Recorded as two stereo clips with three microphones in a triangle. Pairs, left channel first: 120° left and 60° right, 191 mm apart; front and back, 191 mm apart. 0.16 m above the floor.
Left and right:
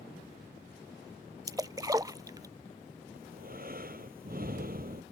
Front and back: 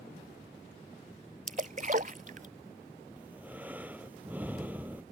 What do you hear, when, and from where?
1.5 s a splash: 130° right
3.2 s breathing: 100° right